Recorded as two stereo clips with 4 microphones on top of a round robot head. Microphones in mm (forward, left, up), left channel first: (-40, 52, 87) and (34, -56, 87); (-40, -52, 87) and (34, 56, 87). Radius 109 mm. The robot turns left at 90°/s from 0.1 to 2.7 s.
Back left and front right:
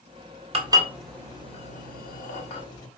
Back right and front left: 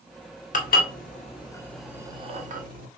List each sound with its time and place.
0.5 s dishes clattering: 100° right, 2.0 m; by 2.9 s 65° left, 2.0 m